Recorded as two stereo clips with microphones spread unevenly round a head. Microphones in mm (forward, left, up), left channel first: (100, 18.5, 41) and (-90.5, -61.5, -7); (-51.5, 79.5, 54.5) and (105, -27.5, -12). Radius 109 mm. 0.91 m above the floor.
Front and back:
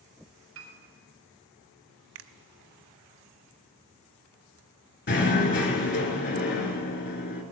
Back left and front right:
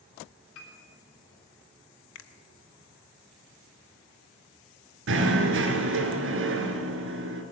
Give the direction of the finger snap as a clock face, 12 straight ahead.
6 o'clock.